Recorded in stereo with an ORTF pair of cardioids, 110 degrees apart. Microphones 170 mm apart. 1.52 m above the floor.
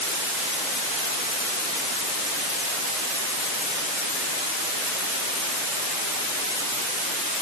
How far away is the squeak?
I don't hear a squeak.